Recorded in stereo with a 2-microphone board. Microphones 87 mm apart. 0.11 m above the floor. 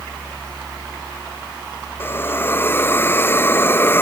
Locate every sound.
2.0 s a hiss: 25° left (ahead or behind)